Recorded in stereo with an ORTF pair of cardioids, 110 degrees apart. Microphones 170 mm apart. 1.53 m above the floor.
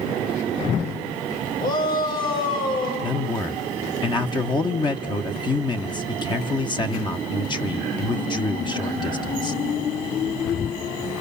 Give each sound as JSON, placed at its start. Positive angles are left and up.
{"t": 1.6, "sound": "a shout", "azimuth_deg": 65, "distance_m": 7.5}
{"t": 3.0, "sound": "a man speaking", "azimuth_deg": 30, "distance_m": 1.2}